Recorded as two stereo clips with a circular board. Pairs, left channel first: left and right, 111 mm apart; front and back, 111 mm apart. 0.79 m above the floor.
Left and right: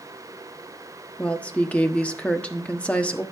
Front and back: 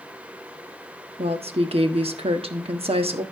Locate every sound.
1.2 s a woman speaking: 165° left, 1.1 m